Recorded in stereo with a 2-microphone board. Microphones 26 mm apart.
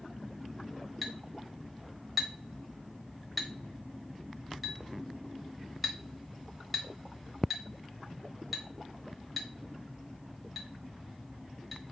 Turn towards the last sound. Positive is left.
turn(degrees=-5)  # may be behind; listen again after turning